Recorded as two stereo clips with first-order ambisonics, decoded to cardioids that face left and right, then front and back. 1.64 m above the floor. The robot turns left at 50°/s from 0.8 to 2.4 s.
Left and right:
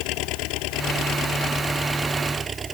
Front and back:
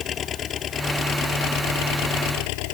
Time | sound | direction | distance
0.0 | an engine running | 60° left | ?